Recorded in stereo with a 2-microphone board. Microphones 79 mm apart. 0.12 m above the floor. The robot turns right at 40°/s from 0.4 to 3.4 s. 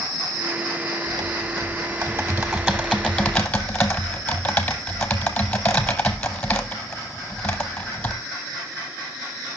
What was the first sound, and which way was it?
Typing on a keyboard, 80° right.